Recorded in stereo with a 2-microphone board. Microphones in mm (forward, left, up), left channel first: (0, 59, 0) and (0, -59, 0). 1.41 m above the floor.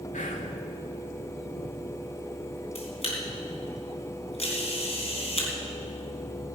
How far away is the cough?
No cough in this recording.